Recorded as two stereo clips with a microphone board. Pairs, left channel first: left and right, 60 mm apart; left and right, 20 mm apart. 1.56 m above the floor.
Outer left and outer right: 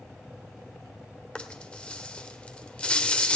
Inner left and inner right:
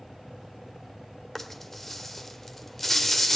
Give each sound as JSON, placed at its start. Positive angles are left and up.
{"t": 1.4, "sound": "a rattle", "side_deg": 15, "distance_m": 1.4}